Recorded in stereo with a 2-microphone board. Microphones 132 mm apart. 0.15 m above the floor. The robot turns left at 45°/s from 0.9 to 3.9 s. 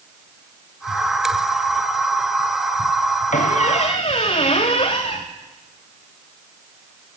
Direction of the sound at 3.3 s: 75° left (ahead or behind).